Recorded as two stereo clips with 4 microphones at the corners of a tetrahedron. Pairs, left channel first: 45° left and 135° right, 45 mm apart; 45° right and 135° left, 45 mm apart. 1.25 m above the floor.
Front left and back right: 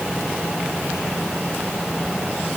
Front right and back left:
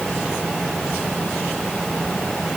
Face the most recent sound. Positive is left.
No sound to turn to.